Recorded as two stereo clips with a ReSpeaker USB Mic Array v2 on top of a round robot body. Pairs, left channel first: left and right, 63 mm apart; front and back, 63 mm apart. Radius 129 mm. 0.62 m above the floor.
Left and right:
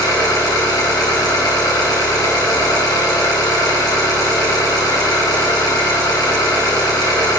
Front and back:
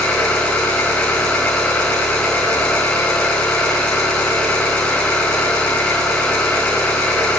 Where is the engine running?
75° left, 4 m.